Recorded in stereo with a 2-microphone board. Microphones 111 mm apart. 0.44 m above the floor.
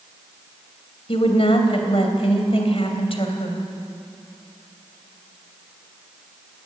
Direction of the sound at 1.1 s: 60° left (ahead or behind).